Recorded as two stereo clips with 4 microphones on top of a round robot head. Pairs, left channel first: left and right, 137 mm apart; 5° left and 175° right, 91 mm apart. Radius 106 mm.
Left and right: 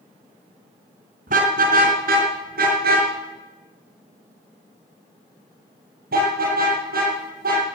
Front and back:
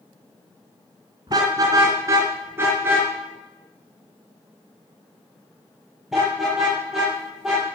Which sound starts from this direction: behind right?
A car horn, at 1.3 s.